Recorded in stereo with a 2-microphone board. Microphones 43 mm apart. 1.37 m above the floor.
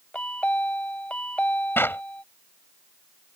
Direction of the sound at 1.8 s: 65° left (ahead or behind).